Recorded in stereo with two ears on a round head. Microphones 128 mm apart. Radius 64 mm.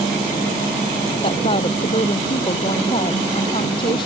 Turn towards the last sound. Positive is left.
turn(degrees=35)  # may be behind; listen again after turning